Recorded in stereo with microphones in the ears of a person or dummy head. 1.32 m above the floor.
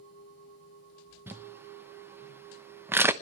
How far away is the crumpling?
About 0.8 m.